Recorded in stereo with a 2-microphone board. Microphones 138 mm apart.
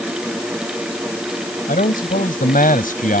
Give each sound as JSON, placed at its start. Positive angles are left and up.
{"t": 1.7, "sound": "a man speaking", "side_deg": 85}